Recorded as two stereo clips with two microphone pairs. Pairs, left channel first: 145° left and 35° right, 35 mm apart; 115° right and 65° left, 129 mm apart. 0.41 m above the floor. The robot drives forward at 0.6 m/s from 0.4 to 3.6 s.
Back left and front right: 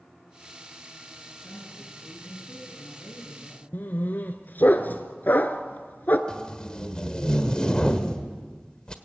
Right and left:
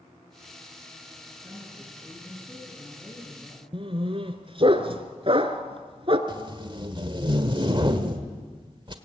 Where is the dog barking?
110° left, 1.3 m.